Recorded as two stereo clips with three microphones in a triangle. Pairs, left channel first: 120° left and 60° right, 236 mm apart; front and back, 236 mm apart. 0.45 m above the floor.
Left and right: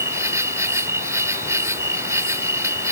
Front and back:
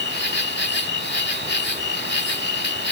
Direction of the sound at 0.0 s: 15° left.